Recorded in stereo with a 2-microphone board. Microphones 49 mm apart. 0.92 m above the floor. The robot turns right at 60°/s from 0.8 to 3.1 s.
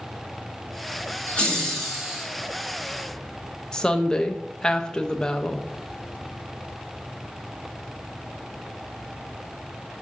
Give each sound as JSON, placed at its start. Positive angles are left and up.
{"t": 1.3, "sound": "laughter", "azimuth_deg": 145, "distance_m": 0.9}
{"t": 3.7, "sound": "a woman speaking", "side_deg": 15, "distance_m": 0.7}